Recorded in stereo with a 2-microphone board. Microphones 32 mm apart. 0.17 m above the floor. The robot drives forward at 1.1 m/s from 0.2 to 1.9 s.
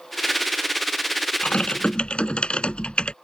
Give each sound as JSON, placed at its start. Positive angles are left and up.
{"t": 1.4, "sound": "typing on a keyboard", "side_deg": 40}